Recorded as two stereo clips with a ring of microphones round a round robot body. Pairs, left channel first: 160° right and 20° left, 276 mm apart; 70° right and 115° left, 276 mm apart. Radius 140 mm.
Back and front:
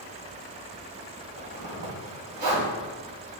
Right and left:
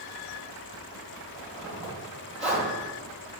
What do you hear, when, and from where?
1.4 s a zipper: 50° left, 2 m